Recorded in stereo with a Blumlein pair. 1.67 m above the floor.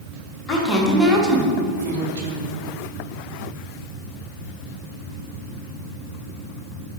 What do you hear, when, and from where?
0.5 s a woman speaking: 20° left, 0.9 m; by 2.5 s 75° right, 0.8 m